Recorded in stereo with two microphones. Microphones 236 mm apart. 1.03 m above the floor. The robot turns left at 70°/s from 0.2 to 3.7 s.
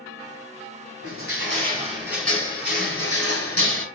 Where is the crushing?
100° right, 3 m; by 3.9 s 75° left, 3 m.